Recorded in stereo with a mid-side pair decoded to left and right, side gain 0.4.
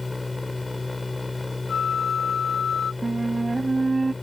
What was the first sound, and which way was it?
A machine running, 20° left.